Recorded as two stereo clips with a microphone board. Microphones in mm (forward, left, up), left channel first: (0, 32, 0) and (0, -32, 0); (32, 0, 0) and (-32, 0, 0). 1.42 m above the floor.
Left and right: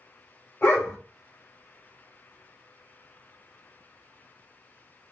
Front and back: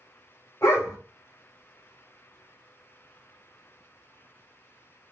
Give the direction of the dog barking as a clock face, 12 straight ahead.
11 o'clock.